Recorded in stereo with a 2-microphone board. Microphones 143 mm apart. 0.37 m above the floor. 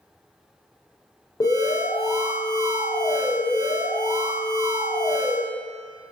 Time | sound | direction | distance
1.4 | an alarm | 25° left (ahead or behind) | 0.6 m